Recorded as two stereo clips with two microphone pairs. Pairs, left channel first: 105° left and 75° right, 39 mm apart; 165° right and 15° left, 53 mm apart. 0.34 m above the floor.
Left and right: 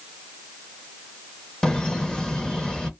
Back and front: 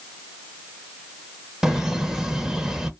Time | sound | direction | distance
1.6 | laughter | 75° left | 0.8 m